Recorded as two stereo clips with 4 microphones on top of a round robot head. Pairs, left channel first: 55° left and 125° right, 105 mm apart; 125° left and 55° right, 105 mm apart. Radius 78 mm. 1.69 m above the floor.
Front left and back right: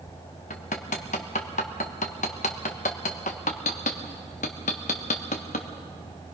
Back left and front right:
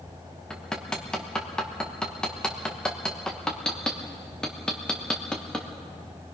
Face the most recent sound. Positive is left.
turn(degrees=40)